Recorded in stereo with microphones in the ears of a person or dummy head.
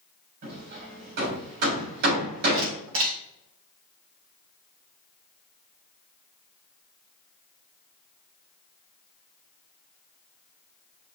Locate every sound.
0.4 s hammering: 60° right (ahead or behind), 3 m
2.5 s a camera shutter: 75° right (ahead or behind), 2 m